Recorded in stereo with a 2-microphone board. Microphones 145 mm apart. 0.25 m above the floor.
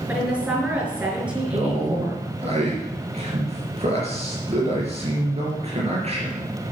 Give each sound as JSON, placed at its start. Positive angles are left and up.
{"t": 0.1, "sound": "a woman speaking", "side_deg": -10, "distance_m": 4.5}
{"t": 1.5, "sound": "a man speaking", "side_deg": -45, "distance_m": 4.5}